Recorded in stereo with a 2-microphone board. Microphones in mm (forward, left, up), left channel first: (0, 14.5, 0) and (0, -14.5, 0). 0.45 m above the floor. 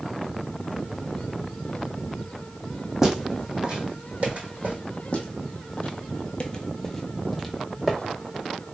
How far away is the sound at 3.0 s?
About 1.3 m.